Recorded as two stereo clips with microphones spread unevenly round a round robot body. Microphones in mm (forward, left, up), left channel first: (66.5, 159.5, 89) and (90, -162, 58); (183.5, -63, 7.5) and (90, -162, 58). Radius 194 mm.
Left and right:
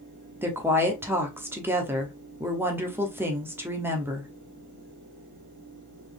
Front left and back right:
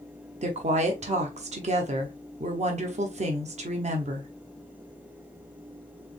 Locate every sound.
0.4 s a woman speaking: 150° right, 0.9 m